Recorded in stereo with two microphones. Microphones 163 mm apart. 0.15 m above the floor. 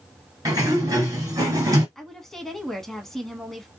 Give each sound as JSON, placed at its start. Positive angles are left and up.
{"t": 0.5, "sound": "a sliding door", "side_deg": -25, "distance_m": 1.6}
{"t": 1.9, "sound": "a woman speaking", "side_deg": 0, "distance_m": 1.0}